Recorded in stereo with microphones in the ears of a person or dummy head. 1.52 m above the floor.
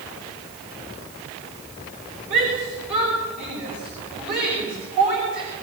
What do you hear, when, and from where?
2.3 s a shout: 60° right (ahead or behind), 6 m